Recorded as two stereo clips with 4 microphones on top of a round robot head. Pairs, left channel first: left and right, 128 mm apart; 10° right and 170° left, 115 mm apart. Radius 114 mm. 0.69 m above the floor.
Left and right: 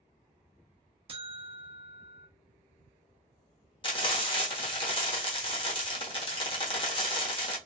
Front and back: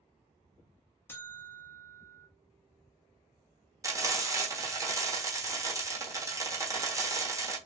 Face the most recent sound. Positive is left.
turn(degrees=120)